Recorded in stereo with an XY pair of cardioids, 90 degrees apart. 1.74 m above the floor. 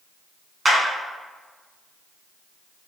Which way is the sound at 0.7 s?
20° right.